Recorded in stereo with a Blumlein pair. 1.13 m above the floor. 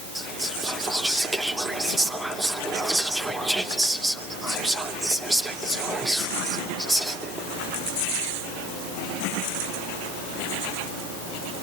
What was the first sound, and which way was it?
Whispering, 5° right.